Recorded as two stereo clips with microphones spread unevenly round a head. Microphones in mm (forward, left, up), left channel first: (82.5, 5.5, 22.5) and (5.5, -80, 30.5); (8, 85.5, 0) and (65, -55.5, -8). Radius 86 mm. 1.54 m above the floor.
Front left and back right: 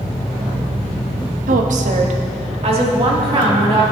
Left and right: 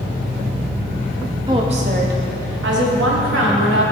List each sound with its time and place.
1.5 s a woman speaking: 140° right, 0.7 m; by 3.8 s 90° right, 2 m